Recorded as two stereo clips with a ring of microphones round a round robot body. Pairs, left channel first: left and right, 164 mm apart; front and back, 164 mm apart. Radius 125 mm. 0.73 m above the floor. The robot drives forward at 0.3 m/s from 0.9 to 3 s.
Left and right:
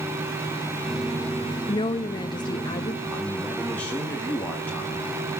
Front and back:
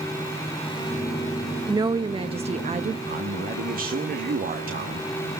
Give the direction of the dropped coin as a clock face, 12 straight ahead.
No dropped coin in this recording.